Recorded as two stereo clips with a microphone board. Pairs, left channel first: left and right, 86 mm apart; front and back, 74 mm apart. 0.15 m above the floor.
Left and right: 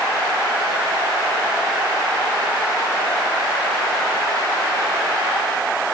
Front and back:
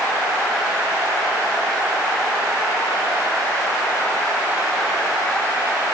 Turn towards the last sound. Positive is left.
No sound to turn to.